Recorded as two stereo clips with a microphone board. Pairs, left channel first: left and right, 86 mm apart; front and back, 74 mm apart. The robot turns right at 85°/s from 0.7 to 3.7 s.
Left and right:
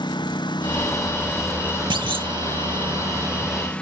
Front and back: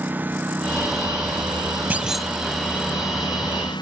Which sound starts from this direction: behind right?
A clunk, at 1.9 s.